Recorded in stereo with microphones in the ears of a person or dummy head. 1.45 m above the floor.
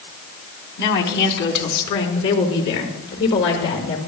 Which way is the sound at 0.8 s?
60° left (ahead or behind).